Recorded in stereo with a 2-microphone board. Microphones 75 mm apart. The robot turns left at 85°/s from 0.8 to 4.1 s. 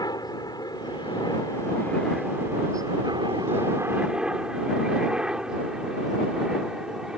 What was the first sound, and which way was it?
A helicopter, 60° left (ahead or behind).